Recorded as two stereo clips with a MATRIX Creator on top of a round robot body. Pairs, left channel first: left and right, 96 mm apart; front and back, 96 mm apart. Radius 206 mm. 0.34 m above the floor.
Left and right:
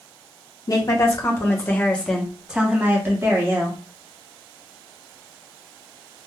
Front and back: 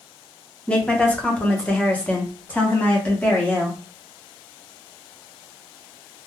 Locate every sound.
0.7 s a woman speaking: 75° left, 1.4 m; by 3.8 s 70° right, 1.4 m